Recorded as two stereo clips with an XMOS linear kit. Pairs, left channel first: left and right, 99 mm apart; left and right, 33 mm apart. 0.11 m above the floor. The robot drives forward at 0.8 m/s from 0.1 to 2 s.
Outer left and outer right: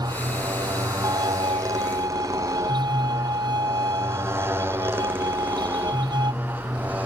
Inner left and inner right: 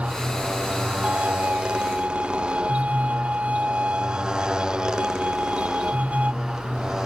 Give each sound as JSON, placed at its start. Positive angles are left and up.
{"t": 0.0, "sound": "a motorcycle", "side_deg": -40}
{"t": 1.0, "sound": "a violin", "side_deg": -45}